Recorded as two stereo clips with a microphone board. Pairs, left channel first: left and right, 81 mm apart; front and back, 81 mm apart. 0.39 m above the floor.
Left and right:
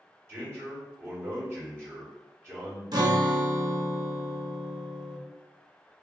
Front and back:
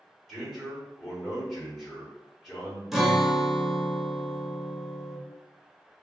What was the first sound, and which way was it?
A man speaking, 95° right.